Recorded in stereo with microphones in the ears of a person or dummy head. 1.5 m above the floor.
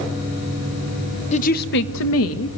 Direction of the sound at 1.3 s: 35° left (ahead or behind).